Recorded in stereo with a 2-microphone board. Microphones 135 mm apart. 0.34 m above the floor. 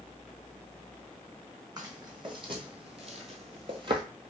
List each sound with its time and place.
1.8 s footsteps: 30° right (ahead or behind), 1.0 m; by 4.0 s 35° right (ahead or behind), 0.5 m